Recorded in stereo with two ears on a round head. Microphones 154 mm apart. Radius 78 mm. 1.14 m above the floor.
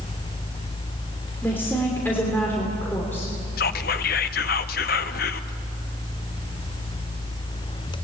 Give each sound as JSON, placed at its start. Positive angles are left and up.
{"t": 1.4, "sound": "a woman speaking", "side_deg": 10, "distance_m": 3.0}
{"t": 3.6, "sound": "whispering", "side_deg": 55, "distance_m": 0.9}